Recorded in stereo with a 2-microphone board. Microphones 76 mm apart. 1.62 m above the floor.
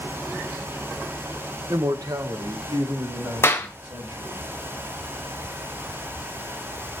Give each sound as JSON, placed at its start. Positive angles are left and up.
{"t": 1.7, "sound": "a man speaking", "side_deg": -40, "distance_m": 0.6}
{"t": 3.4, "sound": "a clap", "side_deg": 35, "distance_m": 1.1}